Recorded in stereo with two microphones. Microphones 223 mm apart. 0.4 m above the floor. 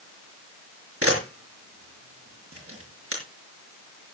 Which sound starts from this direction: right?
A camera shutter, at 1.0 s.